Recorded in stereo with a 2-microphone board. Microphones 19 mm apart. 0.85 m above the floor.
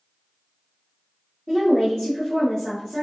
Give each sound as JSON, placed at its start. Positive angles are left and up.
{"t": 1.5, "sound": "a woman speaking", "side_deg": 30, "distance_m": 2.0}